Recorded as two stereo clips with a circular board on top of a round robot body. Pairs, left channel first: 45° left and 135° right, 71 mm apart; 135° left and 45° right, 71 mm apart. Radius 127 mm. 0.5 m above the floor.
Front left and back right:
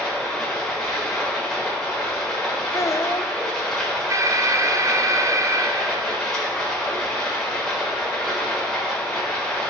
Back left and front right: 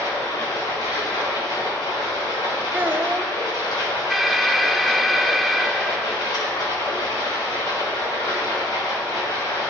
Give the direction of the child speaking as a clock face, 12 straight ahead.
12 o'clock.